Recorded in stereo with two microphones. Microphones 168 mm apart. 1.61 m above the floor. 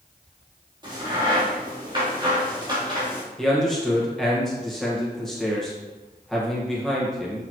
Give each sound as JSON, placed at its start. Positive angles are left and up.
{"t": 0.8, "sound": "a crack", "side_deg": -30, "distance_m": 3.5}
{"t": 3.4, "sound": "a man speaking", "side_deg": 0, "distance_m": 1.7}